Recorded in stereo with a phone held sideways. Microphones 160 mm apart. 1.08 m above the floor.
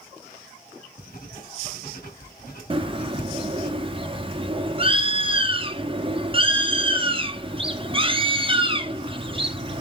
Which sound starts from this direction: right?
A bird, at 2.7 s.